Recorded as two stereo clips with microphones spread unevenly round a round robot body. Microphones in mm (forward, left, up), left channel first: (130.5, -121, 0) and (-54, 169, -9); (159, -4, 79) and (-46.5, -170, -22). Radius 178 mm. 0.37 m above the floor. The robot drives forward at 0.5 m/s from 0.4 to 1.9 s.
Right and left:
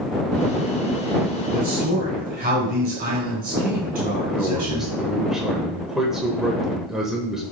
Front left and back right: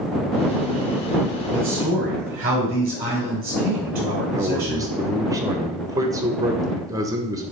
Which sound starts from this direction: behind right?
A man speaking, at 4.3 s.